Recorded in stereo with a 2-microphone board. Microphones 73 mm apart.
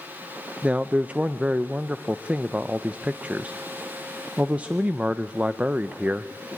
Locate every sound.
0.6 s a man speaking: 20° right (ahead or behind), 0.5 m